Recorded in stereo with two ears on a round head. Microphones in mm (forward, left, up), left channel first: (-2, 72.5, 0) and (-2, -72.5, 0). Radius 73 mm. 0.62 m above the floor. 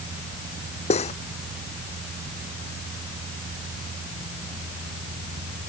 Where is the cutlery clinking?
40° left (ahead or behind).